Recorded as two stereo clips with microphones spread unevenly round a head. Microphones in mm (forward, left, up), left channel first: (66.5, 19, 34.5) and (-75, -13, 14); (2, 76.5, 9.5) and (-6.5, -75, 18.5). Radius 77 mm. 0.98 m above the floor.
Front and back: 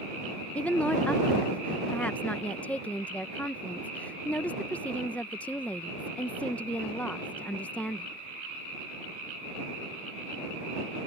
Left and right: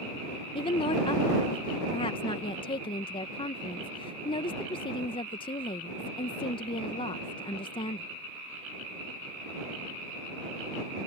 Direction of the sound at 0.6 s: 100° left.